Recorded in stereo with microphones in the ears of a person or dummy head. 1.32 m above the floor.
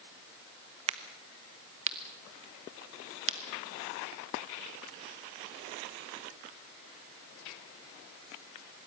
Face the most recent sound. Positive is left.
turn(degrees=-35)  # may be behind; listen again after turning